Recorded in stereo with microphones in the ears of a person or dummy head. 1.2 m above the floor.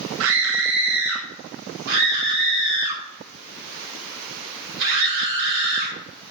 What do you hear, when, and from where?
0.2 s a scream: 70° right (ahead or behind), 1.0 m
1.9 s a scream: 65° right (ahead or behind), 5.5 m